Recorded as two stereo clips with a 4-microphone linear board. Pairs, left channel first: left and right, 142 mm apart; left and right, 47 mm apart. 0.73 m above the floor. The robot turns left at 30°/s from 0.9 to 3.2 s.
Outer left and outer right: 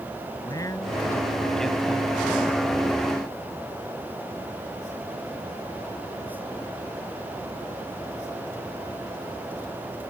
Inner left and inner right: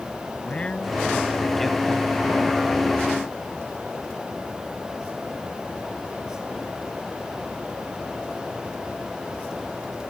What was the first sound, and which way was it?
A man speaking, 25° left.